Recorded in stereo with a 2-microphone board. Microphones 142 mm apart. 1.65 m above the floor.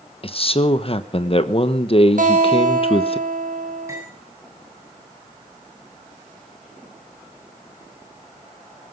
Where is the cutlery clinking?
20° right (ahead or behind), 9 m.